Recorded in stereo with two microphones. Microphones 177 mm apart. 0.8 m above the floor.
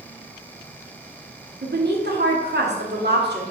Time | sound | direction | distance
1.6 | a woman speaking | 70° right (ahead or behind) | 1.7 m